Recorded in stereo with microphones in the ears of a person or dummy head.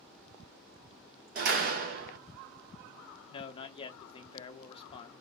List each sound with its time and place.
1.4 s a door slam: 45° right (ahead or behind), 0.6 m
3.3 s a man speaking: 35° left (ahead or behind), 0.8 m